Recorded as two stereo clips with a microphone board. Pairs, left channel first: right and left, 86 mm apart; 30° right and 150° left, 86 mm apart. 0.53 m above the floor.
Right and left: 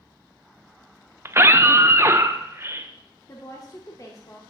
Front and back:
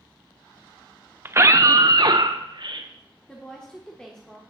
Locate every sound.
1.2 s a scream: 115° left, 0.7 m; by 2.9 s 145° left, 1.4 m
3.3 s a woman speaking: 105° right, 1.4 m